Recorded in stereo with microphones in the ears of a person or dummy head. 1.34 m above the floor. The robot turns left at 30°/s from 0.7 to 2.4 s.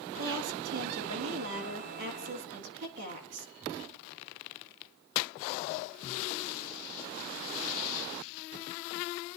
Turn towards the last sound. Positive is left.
turn(degrees=-125)